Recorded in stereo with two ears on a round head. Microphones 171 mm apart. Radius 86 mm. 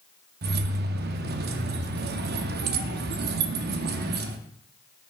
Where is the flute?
I don't hear a flute.